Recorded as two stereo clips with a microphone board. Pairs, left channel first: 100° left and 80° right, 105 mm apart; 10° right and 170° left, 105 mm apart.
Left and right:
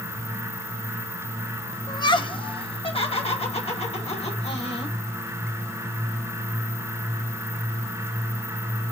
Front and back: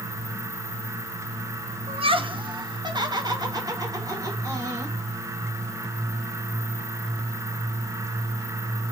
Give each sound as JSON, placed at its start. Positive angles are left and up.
{"t": 1.9, "sound": "laughter", "azimuth_deg": 150, "distance_m": 1.0}